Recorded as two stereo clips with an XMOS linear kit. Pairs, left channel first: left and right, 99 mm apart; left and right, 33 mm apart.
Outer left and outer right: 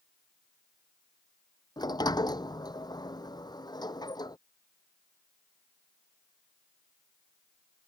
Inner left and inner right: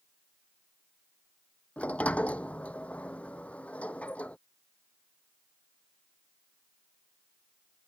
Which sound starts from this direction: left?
A sliding door, at 1.8 s.